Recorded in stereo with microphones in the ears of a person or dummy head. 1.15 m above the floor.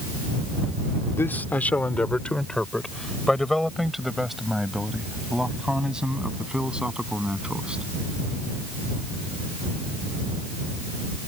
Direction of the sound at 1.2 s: 15° left (ahead or behind).